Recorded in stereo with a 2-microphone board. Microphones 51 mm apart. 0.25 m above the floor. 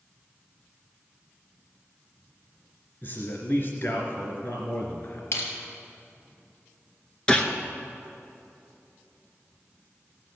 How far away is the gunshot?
About 1.0 m.